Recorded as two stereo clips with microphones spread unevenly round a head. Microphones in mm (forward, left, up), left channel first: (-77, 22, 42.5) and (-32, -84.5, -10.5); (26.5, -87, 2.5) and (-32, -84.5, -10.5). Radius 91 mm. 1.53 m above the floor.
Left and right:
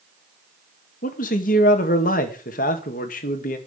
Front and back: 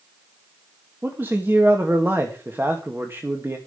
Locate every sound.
1.0 s a man speaking: 100° left, 2.0 m